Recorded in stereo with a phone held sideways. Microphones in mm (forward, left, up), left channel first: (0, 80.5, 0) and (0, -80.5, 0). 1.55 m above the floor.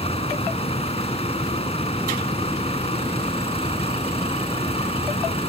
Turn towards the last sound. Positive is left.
turn(degrees=35)  # may be behind; listen again after turning